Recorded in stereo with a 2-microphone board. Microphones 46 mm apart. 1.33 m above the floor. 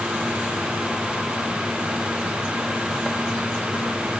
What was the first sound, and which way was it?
Only background noise.